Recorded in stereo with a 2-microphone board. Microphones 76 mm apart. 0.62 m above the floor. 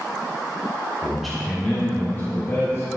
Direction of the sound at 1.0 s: 10° right (ahead or behind).